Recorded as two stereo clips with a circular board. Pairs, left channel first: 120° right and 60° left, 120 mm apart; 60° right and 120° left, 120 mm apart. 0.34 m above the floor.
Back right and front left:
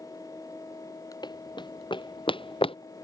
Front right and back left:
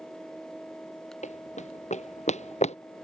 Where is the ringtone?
No ringtone in this recording.